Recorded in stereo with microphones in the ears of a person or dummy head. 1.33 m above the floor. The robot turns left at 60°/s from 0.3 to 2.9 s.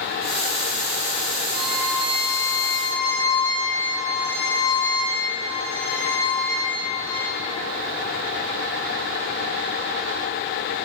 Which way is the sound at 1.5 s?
115° right.